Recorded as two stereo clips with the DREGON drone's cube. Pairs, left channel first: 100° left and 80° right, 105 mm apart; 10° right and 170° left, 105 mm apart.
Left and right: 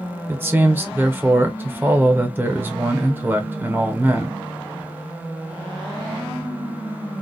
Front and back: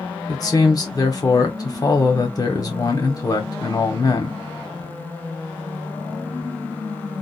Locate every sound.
0.3 s a man speaking: 25° right, 1.0 m